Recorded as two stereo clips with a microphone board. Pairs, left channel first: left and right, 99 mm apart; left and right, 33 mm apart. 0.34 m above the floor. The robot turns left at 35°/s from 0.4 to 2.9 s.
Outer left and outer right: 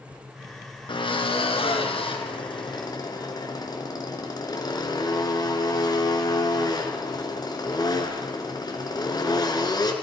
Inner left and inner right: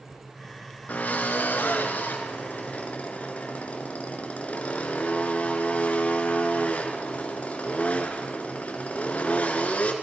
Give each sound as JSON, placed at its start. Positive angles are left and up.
{"t": 0.9, "sound": "a drill", "azimuth_deg": 120, "distance_m": 3.0}